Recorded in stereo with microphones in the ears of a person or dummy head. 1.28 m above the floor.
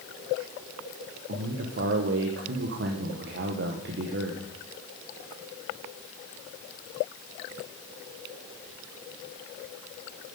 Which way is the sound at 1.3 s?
55° right (ahead or behind).